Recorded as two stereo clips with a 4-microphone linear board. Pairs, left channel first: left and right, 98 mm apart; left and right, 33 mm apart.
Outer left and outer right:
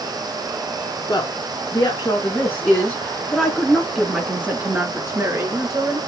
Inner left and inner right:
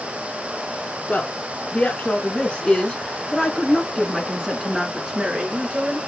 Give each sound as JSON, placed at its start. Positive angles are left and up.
{"t": 1.1, "sound": "a woman speaking", "side_deg": 40, "distance_m": 2.0}